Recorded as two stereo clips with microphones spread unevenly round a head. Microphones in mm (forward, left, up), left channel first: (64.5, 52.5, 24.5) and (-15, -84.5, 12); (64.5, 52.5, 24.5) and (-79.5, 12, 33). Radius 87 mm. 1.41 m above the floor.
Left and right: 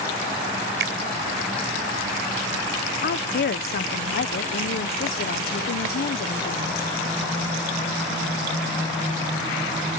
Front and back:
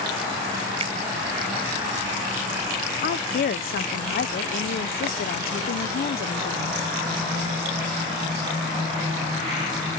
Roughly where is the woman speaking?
Ahead left.